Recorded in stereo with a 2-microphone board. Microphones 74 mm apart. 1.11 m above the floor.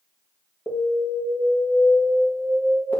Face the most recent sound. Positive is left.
turn(degrees=20)  # may be behind; listen again after turning